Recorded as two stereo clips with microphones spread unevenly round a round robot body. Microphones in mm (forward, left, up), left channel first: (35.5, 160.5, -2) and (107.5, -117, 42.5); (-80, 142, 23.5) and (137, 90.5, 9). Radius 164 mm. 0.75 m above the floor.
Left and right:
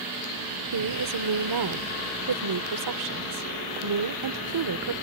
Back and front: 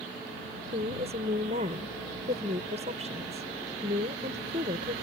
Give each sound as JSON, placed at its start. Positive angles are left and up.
{"t": 0.7, "sound": "a woman speaking", "azimuth_deg": -80}